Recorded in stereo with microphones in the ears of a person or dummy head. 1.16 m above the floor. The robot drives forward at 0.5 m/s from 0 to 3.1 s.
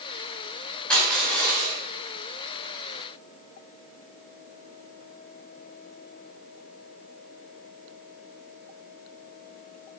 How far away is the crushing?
About 4 m.